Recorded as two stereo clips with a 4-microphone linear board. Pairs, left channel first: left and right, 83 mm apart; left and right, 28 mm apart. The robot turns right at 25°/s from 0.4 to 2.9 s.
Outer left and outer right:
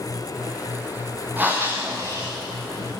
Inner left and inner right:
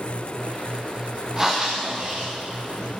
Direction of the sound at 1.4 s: 160° right.